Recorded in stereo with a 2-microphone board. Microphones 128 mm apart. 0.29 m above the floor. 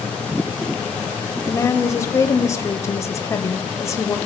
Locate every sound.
1.5 s a woman speaking: 25° left (ahead or behind), 0.9 m